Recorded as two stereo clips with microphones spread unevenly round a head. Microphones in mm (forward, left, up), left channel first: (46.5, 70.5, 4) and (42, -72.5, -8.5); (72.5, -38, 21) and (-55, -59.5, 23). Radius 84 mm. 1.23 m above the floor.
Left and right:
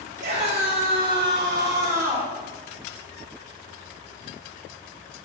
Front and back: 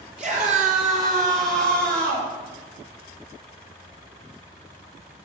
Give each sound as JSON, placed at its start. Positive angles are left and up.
{"t": 0.2, "sound": "a scream", "azimuth_deg": -140, "distance_m": 3.5}